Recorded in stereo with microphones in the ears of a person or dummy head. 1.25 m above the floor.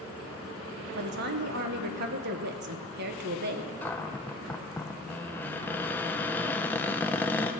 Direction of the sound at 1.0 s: 55° right (ahead or behind).